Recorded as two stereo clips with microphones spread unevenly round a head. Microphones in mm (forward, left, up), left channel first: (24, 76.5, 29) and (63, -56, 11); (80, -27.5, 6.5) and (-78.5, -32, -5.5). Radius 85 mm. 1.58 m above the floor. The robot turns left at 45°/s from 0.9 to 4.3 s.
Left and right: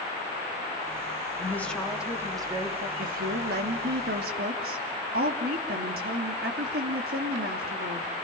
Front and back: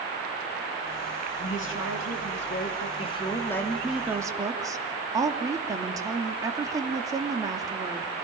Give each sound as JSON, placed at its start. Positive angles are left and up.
{"t": 1.4, "sound": "a woman speaking", "azimuth_deg": 35, "distance_m": 4.0}
{"t": 3.0, "sound": "a woman speaking", "azimuth_deg": -50, "distance_m": 3.0}